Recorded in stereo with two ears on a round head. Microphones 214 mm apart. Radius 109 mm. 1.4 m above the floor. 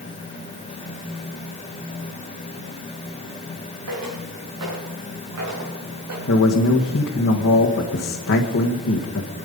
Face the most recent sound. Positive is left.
turn(degrees=50)  # may be behind; listen again after turning